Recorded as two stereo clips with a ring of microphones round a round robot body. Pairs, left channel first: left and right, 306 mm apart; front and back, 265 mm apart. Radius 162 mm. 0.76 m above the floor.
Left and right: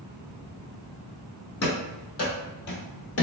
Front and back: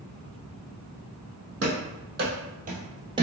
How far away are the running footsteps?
About 2.0 m.